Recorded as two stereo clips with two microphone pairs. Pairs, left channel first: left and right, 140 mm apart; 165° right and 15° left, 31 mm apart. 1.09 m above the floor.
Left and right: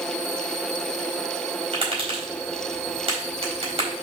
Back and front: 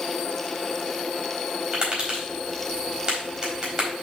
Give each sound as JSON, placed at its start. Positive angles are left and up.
{"t": 1.7, "sound": "tapping", "azimuth_deg": -45, "distance_m": 4.0}